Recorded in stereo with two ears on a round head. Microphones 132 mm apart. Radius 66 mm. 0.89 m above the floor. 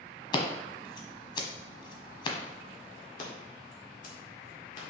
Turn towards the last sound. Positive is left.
turn(degrees=55)  # may be behind; listen again after turning